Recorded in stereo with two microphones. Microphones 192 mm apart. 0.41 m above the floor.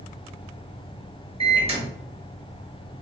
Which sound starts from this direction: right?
A microwave, at 1.4 s.